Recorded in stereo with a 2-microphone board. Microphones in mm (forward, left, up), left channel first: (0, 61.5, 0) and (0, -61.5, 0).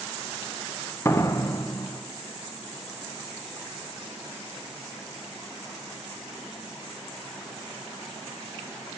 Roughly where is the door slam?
Left.